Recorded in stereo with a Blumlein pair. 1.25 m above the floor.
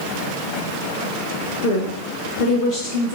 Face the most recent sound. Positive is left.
turn(degrees=35)